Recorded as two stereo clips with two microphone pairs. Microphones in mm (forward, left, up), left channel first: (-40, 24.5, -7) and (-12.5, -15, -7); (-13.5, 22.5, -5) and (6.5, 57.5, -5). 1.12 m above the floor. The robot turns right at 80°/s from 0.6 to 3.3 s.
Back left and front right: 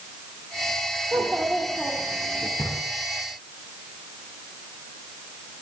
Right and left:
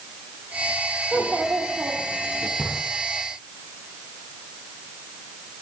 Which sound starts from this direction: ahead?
A child speaking, at 1.1 s.